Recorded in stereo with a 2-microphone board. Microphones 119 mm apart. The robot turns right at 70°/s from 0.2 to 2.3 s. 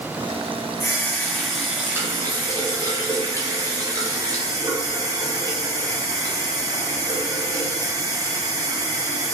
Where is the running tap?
130° left, 1.0 m; by 9.3 s 125° right, 1.0 m.